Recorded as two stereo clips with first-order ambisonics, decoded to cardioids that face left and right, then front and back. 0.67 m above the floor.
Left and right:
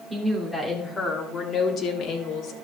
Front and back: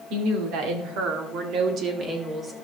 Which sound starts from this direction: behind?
A woman speaking, at 0.1 s.